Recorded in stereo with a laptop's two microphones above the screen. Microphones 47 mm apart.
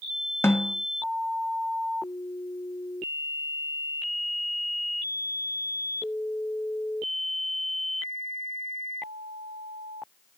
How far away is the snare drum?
About 1.8 m.